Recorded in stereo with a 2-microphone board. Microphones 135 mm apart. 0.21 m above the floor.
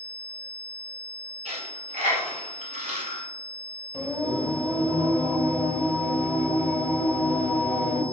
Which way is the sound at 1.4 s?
60° right (ahead or behind).